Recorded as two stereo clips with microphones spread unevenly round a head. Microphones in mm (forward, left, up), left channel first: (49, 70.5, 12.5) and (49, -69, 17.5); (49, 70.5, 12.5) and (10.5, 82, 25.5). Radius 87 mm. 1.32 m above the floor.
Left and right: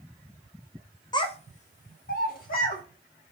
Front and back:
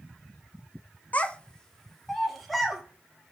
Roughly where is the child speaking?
Ahead left.